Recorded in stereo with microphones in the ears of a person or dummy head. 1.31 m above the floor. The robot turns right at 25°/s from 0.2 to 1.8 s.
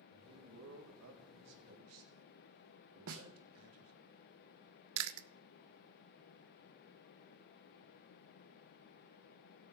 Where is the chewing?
80° right, 0.6 m.